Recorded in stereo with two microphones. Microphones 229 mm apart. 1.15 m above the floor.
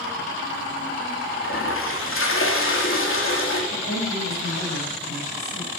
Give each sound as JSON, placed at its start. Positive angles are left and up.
{"t": 1.4, "sound": "a toilet flushing", "side_deg": 65, "distance_m": 3.0}
{"t": 3.7, "sound": "a woman speaking", "side_deg": 70, "distance_m": 7.0}